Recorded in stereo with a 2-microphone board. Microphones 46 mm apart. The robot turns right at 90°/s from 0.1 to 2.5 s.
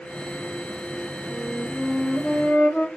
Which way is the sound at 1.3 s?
20° left.